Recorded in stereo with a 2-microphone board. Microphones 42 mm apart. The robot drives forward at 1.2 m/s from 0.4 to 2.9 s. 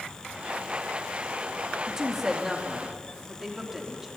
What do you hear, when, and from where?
1.9 s a woman speaking: 10° right (ahead or behind), 3 m